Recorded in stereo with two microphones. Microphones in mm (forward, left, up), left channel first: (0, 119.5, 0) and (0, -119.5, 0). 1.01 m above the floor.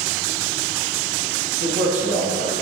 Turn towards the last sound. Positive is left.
turn(degrees=-65)  # may be behind; listen again after turning